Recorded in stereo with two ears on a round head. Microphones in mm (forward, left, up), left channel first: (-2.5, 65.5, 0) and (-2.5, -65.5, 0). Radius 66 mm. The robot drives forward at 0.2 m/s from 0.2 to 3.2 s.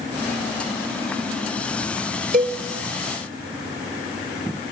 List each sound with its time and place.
2.3 s a cowbell: 65° right (ahead or behind), 4 m